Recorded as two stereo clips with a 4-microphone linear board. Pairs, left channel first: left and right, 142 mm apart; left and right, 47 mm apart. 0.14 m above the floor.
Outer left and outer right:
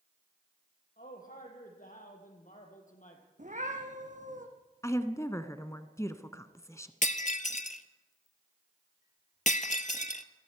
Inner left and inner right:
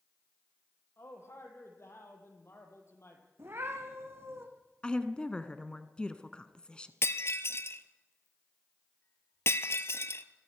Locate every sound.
1.0 s a man speaking: 70° left (ahead or behind), 5 m; by 3.2 s 60° left (ahead or behind), 4 m
3.4 s a cat meowing: 60° right (ahead or behind), 3.5 m
4.8 s a woman speaking: 20° left (ahead or behind), 1.1 m
7.0 s breaking glass: 60° left (ahead or behind), 1.0 m